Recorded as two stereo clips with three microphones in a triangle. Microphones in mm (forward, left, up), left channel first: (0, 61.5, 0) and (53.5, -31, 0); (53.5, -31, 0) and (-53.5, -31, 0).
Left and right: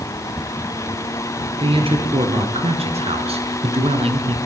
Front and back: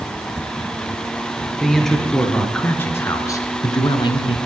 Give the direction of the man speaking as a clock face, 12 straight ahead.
3 o'clock.